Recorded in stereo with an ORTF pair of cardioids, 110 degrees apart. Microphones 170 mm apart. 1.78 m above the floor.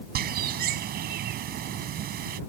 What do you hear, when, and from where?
0.1 s a bird: 65° right